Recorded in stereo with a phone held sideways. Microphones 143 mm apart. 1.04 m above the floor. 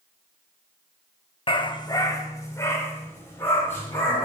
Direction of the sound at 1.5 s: 35° left (ahead or behind).